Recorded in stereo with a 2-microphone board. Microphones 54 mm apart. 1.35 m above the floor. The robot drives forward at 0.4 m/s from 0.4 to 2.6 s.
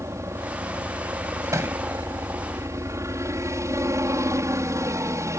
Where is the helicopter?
60° right (ahead or behind).